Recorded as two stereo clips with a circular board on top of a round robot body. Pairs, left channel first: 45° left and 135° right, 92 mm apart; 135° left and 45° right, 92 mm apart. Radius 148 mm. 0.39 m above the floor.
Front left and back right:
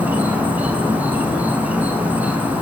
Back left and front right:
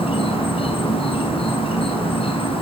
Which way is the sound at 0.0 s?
150° left.